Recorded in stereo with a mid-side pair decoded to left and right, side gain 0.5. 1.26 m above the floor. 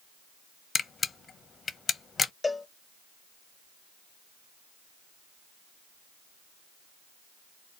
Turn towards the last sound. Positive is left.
turn(degrees=20)